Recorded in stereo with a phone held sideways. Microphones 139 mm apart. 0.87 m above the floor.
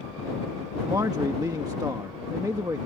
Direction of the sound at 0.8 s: 30° right (ahead or behind).